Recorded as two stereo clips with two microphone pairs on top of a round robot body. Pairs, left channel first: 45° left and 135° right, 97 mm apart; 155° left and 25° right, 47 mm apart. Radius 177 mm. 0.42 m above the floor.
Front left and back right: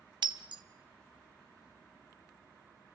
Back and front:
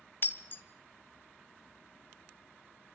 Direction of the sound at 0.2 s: 170° right.